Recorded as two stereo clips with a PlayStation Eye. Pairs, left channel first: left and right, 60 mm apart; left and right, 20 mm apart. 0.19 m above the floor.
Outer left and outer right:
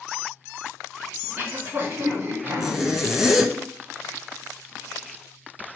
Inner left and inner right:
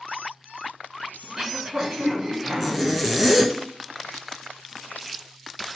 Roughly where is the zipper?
Centre.